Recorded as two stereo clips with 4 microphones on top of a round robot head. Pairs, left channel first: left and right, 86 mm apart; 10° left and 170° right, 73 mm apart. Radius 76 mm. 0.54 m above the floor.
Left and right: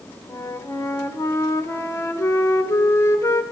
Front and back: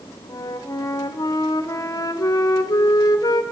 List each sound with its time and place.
0.3 s a flute: 40° left, 1.7 m